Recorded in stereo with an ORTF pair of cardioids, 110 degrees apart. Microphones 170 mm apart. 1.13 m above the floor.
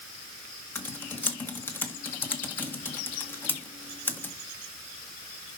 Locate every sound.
0.8 s typing on a keyboard: 10° left, 1.8 m